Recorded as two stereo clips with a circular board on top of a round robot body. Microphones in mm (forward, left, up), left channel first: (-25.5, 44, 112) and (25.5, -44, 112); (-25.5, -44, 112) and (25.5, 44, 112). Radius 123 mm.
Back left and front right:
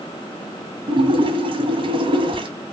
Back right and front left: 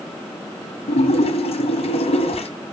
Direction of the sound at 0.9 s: 100° right.